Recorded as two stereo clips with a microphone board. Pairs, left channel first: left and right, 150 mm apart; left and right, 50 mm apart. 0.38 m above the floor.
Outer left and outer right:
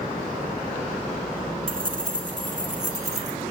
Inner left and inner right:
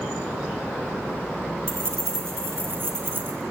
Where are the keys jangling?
65° right (ahead or behind), 3 m; by 3.4 s 45° right (ahead or behind), 3 m.